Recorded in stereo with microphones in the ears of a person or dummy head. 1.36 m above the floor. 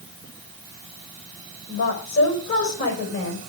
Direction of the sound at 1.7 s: 70° left (ahead or behind).